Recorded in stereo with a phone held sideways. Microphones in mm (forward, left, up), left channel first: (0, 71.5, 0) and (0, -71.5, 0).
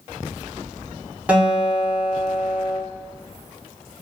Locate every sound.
1.3 s a guitar: 10° right (ahead or behind), 0.7 m